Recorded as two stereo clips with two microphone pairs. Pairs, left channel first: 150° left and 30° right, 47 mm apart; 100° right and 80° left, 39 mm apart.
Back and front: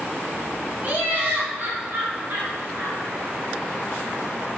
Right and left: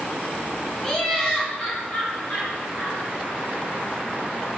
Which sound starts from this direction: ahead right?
Laughter, at 0.8 s.